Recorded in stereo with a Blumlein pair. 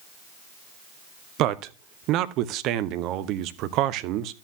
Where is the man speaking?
40° right, 0.6 m.